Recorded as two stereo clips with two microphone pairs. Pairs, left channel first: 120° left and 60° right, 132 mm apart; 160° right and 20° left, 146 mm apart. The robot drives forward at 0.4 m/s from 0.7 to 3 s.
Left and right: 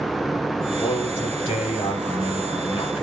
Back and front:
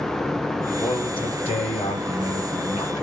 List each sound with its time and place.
0.8 s a man speaking: 155° left, 1.1 m; by 3.0 s 170° left, 1.8 m